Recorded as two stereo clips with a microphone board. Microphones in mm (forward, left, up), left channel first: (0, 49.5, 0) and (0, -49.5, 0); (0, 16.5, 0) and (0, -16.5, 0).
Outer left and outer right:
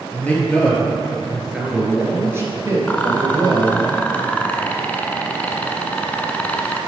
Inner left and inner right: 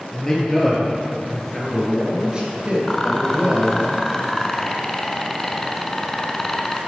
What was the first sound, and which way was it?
A man speaking, 15° left (ahead or behind).